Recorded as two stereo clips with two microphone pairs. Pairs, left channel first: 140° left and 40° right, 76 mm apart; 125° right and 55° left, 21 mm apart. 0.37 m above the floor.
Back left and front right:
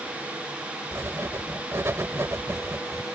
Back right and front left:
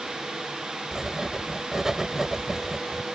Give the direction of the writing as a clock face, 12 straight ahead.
12 o'clock.